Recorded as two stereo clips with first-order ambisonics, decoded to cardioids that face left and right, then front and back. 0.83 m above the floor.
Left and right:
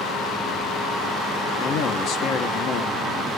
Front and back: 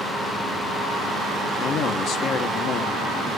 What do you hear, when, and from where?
1.6 s a man speaking: 45° left, 1.2 m